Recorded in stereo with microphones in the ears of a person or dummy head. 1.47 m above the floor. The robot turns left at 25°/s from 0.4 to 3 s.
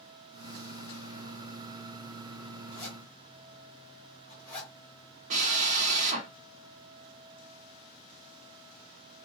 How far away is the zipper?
About 1.8 m.